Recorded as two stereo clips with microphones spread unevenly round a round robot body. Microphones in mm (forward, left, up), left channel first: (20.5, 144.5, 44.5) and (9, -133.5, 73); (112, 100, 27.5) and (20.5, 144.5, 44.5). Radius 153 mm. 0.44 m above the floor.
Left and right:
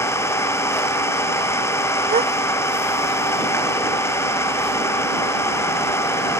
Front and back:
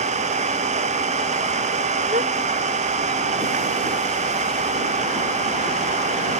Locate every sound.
0.0 s an engine running: 170° left
2.1 s a gasp: 160° right